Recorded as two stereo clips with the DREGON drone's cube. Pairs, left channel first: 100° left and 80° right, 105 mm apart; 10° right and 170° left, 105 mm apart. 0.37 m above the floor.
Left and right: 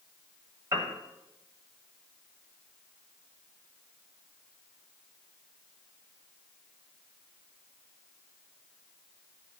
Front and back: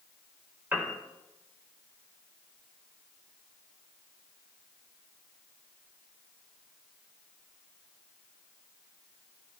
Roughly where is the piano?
Behind right.